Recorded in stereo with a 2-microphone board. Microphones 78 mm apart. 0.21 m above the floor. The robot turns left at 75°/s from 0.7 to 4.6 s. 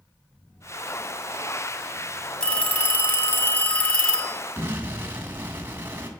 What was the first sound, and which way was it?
A phone ringing, 10° left (ahead or behind).